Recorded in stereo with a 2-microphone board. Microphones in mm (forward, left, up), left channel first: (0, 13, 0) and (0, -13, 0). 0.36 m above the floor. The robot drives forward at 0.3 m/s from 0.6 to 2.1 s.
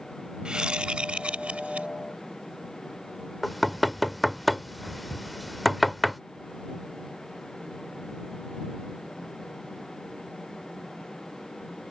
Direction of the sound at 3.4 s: Centre (ahead or behind).